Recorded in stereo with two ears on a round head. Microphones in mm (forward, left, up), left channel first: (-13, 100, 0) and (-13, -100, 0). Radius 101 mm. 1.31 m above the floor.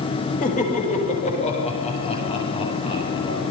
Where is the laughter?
35° left (ahead or behind), 7.5 m; by 3.4 s 25° left (ahead or behind), 11.5 m.